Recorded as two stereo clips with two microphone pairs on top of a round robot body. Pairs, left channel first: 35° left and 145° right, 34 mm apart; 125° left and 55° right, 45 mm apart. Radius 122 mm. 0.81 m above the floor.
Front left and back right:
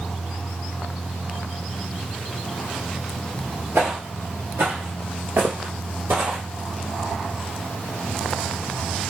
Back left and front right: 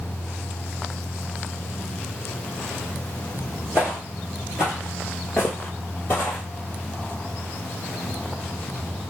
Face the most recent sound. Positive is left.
turn(degrees=180)